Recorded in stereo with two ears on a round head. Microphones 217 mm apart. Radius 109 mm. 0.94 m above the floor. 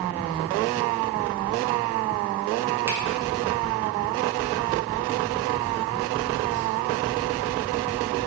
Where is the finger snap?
10° right (ahead or behind), 0.8 m.